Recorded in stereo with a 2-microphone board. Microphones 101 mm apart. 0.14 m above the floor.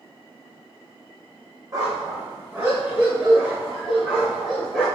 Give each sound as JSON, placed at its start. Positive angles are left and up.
{"t": 1.7, "sound": "a dog barking", "side_deg": -35, "distance_m": 2.5}